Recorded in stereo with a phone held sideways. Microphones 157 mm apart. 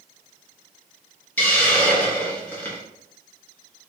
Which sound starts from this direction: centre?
A hiss, at 1.4 s.